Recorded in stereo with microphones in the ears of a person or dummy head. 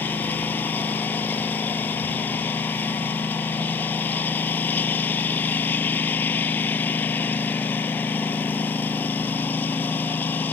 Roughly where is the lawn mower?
Centre.